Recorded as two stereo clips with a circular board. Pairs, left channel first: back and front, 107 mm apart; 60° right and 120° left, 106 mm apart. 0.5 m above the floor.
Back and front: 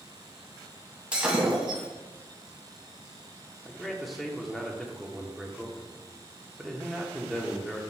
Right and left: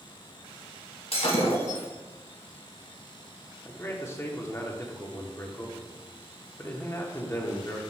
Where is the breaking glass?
80° right, 2 m.